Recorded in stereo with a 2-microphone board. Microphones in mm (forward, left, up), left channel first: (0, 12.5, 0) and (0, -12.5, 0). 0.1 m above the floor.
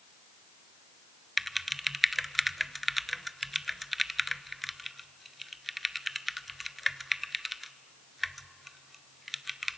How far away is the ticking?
I don't hear ticking.